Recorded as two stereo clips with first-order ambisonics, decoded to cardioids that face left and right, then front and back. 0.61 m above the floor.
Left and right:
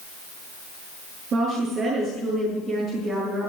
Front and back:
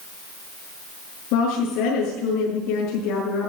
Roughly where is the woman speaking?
Ahead right.